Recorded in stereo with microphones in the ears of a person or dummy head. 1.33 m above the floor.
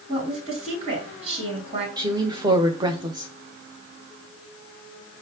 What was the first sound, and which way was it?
A woman speaking, 50° right (ahead or behind).